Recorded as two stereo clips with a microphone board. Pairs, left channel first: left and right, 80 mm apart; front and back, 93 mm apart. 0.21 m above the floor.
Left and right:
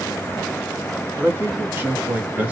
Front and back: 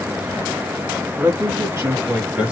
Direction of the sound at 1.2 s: 145° right.